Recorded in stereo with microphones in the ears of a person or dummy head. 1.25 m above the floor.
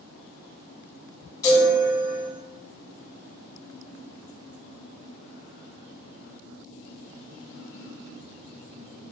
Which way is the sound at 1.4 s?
20° left (ahead or behind).